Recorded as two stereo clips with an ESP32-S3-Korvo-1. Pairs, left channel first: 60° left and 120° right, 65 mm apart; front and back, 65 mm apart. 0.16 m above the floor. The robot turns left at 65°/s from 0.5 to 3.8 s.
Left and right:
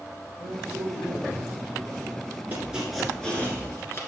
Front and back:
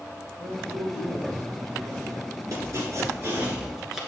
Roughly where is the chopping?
Behind.